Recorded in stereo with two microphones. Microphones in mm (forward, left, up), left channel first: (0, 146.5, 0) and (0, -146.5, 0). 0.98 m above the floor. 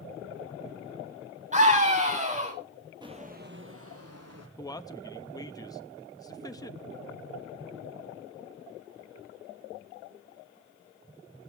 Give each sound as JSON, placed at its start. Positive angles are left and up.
{"t": 1.5, "sound": "a scream", "side_deg": -25, "distance_m": 6.0}
{"t": 3.0, "sound": "footsteps", "side_deg": -15, "distance_m": 1.4}
{"t": 4.6, "sound": "a man speaking", "side_deg": 15, "distance_m": 1.0}